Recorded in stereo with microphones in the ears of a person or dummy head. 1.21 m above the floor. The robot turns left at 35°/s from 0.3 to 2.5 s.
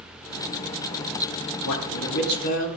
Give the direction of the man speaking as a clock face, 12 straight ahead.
9 o'clock.